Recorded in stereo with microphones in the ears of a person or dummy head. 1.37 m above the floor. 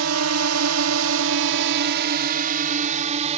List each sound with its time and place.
0.0 s a drone: 80° right; by 3.4 s 40° right (ahead or behind)